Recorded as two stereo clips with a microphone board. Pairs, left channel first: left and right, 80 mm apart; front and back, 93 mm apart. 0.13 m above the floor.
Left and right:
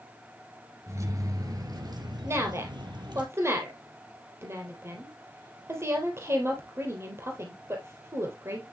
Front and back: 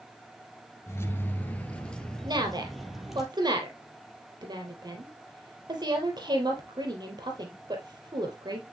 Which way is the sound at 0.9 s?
50° right.